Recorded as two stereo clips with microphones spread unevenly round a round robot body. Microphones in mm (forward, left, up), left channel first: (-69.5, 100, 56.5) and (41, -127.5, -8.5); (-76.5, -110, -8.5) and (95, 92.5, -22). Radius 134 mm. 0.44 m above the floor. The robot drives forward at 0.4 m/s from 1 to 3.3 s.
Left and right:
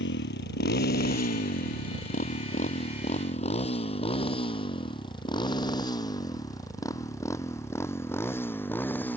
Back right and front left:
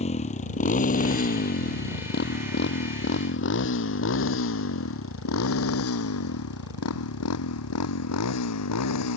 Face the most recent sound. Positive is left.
turn(degrees=-160)